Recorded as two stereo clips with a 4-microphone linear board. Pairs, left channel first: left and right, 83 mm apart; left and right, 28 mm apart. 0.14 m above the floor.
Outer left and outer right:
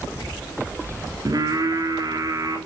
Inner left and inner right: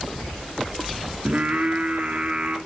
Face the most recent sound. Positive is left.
turn(degrees=-45)  # may be behind; listen again after turning